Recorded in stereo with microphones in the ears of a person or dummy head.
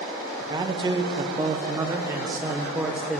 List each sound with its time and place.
0.4 s a man speaking: 20° right (ahead or behind), 0.9 m; by 3.2 s centre (ahead or behind), 1.1 m